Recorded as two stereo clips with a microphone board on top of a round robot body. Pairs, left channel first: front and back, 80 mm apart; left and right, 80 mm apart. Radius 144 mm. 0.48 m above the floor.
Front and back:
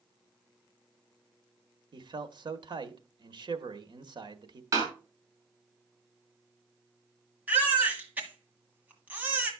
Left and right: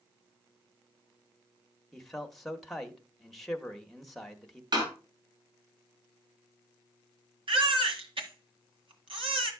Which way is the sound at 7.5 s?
105° right.